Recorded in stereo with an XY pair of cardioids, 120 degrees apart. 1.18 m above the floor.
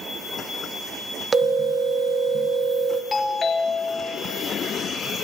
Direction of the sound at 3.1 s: 40° left.